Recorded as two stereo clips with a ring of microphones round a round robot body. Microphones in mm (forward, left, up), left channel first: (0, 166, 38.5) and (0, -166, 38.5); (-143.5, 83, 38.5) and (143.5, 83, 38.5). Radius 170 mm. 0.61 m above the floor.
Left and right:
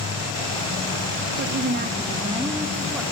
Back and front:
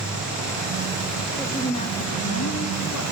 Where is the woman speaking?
95° right, 1.0 m; by 3.0 s straight behind, 1.6 m.